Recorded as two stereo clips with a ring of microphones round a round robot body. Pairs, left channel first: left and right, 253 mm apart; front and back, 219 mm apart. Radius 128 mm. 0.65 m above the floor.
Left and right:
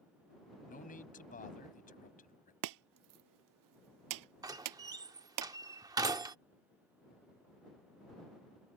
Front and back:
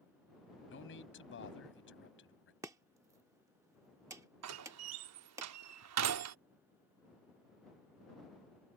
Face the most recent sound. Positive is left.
turn(degrees=-165)